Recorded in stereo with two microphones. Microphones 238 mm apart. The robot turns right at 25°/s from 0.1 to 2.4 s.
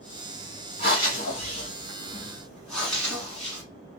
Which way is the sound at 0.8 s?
40° left (ahead or behind).